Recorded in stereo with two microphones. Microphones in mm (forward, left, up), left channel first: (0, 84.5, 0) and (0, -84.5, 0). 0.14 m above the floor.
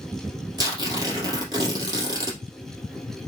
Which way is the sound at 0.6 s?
25° right (ahead or behind).